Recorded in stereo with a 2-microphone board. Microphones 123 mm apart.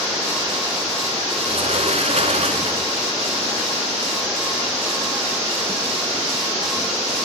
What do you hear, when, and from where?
1.4 s a sliding door: 60° right (ahead or behind), 1.0 m